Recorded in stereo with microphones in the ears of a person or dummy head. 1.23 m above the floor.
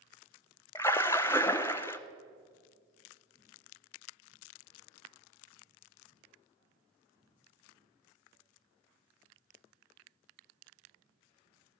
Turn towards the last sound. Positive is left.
turn(degrees=10)  # may be behind; listen again after turning